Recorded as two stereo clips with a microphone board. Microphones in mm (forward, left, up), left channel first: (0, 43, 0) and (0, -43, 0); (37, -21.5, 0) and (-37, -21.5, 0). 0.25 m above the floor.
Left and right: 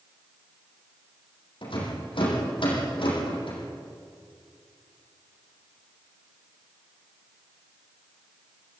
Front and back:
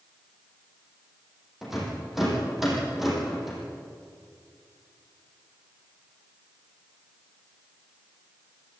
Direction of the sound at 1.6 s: 95° left.